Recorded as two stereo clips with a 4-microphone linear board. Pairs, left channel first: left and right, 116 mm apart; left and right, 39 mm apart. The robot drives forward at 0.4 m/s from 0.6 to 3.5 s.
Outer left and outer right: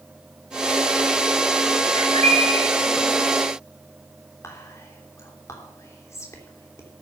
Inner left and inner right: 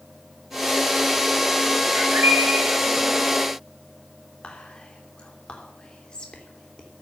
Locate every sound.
1.9 s a bird: 80° right, 8.5 m
4.4 s whispering: 25° left (ahead or behind), 3 m